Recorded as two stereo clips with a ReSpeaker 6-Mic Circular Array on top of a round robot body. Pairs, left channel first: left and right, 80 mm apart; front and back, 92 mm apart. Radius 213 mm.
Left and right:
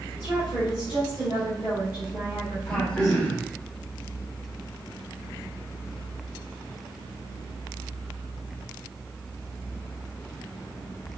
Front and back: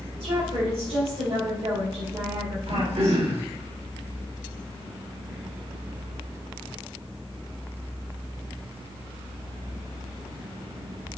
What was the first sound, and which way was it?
A woman speaking, 145° right.